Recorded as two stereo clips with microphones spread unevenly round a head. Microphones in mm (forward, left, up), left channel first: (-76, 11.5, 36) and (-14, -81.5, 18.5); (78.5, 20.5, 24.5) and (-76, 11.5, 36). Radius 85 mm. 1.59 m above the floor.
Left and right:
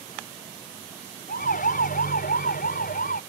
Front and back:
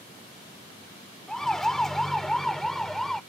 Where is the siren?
90° left.